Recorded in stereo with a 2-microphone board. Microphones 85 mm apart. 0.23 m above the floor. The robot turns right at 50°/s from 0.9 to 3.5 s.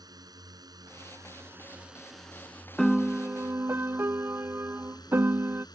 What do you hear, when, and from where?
0.0 s a drone: 60° right; by 5.8 s 70° left
2.8 s a piano: 175° left; by 5.7 s 150° right